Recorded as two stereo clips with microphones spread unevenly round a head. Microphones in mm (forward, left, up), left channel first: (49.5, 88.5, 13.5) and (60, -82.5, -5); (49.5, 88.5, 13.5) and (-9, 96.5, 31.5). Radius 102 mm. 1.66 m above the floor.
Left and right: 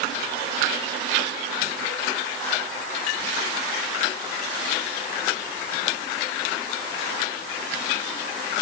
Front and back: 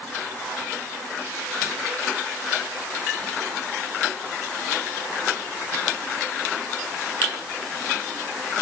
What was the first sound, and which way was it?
Only background noise.